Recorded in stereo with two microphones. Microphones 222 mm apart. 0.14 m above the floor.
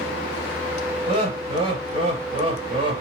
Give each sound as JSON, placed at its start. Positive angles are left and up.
{"t": 1.1, "sound": "laughter", "side_deg": -30, "distance_m": 1.9}